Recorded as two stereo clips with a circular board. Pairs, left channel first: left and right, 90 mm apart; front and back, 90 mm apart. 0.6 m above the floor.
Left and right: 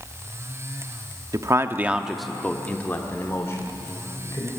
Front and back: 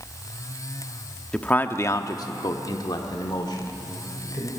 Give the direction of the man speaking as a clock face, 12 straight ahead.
2 o'clock.